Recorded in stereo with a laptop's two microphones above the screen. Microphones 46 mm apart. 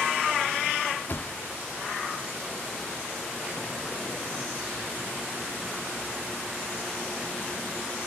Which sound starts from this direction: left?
A thud, at 1.1 s.